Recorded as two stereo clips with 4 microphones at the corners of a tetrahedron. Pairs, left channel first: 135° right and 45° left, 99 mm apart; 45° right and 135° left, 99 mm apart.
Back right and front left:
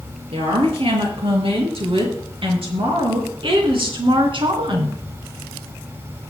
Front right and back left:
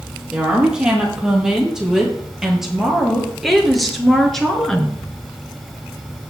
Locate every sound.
0.3 s a woman speaking: 55° left, 5.5 m; by 5.0 s 35° left, 2.5 m